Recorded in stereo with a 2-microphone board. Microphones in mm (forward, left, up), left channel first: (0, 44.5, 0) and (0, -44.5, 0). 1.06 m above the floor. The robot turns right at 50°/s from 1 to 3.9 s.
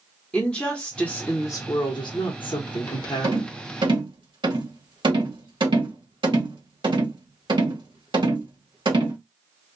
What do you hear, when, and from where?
0.3 s a woman speaking: 10° left, 0.8 m; by 3.5 s 135° left, 0.8 m
3.2 s a rattle: 55° right (ahead or behind), 1.5 m; by 9.2 s 70° right (ahead or behind), 1.5 m